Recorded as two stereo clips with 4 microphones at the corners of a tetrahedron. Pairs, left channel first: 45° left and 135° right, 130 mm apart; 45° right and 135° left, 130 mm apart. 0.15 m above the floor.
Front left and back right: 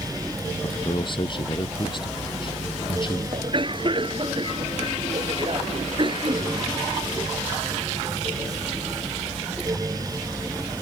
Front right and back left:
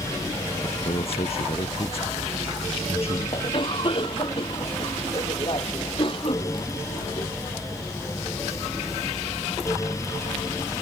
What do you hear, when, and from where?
0.6 s a man speaking: 5° right
3.3 s a cough: 90° right